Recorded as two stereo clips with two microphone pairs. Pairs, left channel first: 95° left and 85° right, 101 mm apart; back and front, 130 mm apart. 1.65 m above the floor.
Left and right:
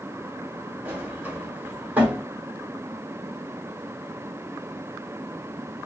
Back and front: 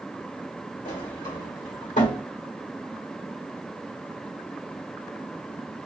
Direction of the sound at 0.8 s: 160° right.